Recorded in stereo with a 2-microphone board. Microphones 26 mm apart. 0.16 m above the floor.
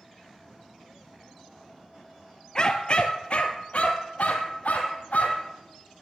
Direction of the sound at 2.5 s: 30° left (ahead or behind).